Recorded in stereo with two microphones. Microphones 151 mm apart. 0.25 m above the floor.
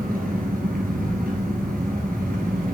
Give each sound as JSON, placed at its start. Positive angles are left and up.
{"t": 0.0, "sound": "an engine running", "side_deg": -75, "distance_m": 2.0}